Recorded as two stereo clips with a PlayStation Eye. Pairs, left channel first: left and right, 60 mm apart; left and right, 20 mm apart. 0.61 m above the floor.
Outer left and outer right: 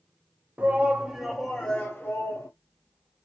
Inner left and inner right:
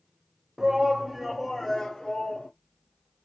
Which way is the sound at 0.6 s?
30° right (ahead or behind).